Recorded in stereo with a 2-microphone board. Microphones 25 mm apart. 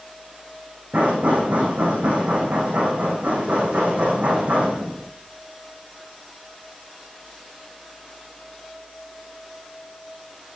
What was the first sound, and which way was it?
Knocking, 75° right (ahead or behind).